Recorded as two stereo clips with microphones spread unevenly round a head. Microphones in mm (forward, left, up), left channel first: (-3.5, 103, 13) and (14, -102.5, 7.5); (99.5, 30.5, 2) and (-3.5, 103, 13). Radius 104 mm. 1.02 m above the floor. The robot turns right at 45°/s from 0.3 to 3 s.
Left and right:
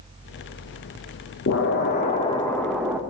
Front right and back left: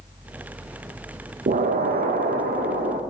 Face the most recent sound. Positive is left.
turn(degrees=-165)